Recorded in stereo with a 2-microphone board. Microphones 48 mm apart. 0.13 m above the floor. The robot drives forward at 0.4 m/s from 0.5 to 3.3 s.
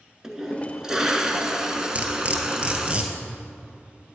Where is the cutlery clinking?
30° right (ahead or behind), 1.2 m; by 4.2 s 25° right (ahead or behind), 1.6 m.